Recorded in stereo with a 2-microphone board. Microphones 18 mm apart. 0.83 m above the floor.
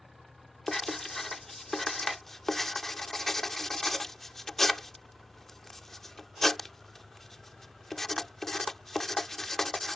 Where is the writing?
20° left (ahead or behind).